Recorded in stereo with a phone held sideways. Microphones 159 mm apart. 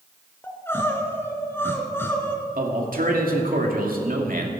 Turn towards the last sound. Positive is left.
turn(degrees=-65)  # may be behind; listen again after turning